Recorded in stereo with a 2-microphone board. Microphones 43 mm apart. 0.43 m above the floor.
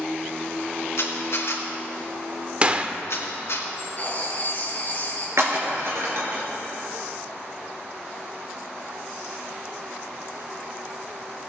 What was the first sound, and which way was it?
A camera shutter, 70° left (ahead or behind).